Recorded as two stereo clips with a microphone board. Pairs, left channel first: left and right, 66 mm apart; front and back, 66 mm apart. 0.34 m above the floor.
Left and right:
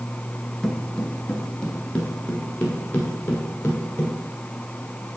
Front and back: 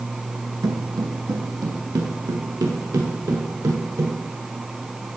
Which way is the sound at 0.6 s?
175° left.